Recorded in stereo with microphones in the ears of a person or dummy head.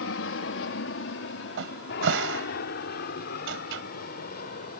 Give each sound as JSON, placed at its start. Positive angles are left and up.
{"t": 0.0, "sound": "an aircraft", "side_deg": 65}
{"t": 1.6, "sound": "a cupboard door", "side_deg": -75}